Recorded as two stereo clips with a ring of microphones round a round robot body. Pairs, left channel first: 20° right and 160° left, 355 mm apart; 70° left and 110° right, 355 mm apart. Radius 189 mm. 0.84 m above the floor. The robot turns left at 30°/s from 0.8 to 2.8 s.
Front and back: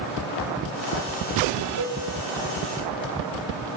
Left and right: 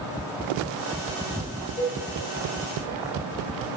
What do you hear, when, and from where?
1.8 s a cowbell: 140° left, 3.5 m; by 2.0 s 135° left, 3.5 m